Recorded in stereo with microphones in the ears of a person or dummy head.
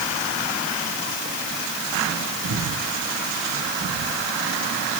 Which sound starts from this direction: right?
Breathing, at 2.4 s.